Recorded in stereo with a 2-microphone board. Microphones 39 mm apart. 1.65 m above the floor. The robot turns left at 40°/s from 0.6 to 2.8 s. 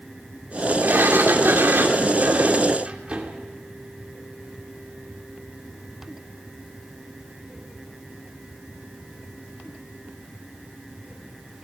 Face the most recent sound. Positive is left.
turn(degrees=-150)